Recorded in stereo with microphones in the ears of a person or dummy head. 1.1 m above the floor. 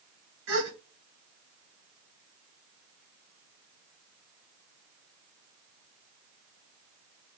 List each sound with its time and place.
0.5 s a gasp: 70° right (ahead or behind), 2.5 m